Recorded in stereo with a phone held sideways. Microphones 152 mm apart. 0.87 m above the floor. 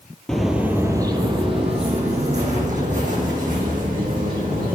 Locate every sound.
0.3 s footsteps: 5° left (ahead or behind), 1.1 m; by 4.8 s 65° right (ahead or behind), 4 m